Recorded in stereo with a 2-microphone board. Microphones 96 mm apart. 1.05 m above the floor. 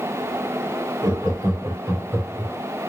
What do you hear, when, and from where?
1.0 s laughter: 45° right (ahead or behind), 2.5 m; by 2.5 s 5° right (ahead or behind), 0.9 m